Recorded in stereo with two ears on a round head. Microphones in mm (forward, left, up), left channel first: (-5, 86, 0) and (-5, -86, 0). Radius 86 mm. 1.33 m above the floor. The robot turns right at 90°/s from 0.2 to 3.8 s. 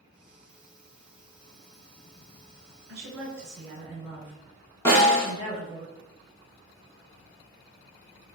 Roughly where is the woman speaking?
Right.